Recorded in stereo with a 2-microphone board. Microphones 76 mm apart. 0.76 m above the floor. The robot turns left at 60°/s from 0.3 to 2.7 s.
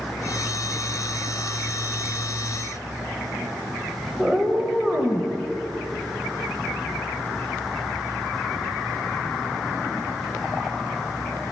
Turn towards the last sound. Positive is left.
turn(degrees=-10)  # may be behind; listen again after turning